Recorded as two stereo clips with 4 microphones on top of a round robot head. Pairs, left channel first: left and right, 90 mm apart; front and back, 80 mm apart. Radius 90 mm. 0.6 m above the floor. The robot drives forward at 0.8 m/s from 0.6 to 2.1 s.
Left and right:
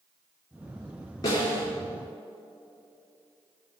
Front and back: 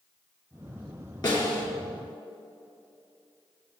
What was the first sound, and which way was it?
A snare drum, 35° left.